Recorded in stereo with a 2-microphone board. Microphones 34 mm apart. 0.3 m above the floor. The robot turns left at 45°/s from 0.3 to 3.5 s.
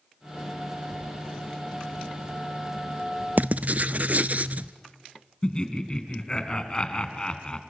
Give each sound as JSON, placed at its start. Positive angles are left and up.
{"t": 3.4, "sound": "writing", "side_deg": -55, "distance_m": 0.6}
{"t": 5.4, "sound": "laughter", "side_deg": 25, "distance_m": 3.0}